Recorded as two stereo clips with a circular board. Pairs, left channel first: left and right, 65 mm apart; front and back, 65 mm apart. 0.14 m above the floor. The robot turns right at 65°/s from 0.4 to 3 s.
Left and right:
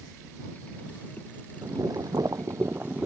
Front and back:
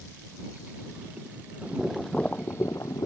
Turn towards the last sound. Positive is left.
turn(degrees=-25)